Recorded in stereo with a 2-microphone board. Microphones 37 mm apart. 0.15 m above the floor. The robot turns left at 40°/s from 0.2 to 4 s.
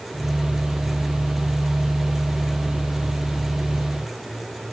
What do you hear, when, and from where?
Only background noise.